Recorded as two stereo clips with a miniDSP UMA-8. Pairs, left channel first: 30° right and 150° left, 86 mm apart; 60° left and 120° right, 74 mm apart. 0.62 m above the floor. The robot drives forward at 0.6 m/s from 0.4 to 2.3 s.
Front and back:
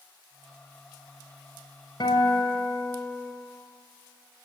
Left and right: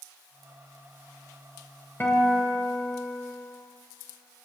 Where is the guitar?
Straight ahead, 4 m.